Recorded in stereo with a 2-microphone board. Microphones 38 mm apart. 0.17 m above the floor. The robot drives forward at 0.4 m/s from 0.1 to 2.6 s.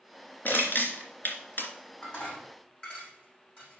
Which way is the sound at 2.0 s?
35° left (ahead or behind).